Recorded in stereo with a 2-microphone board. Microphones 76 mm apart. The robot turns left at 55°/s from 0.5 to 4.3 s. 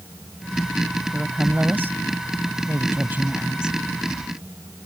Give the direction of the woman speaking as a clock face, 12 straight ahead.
1 o'clock.